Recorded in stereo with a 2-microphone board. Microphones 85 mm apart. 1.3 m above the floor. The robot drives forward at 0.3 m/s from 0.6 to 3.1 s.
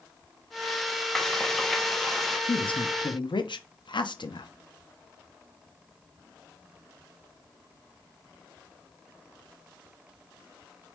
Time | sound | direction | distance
1.1 | frying | 5° left (ahead or behind) | 0.7 m
2.5 | a woman speaking | 80° left | 0.6 m